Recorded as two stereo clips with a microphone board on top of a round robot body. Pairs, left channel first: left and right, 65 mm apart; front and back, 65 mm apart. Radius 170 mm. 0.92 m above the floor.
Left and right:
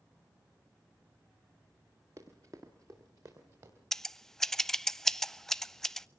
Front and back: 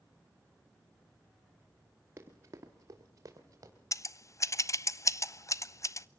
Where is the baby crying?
No baby crying in this recording.